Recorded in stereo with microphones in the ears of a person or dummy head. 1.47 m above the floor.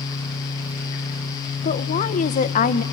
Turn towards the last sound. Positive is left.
turn(degrees=40)  # may be behind; listen again after turning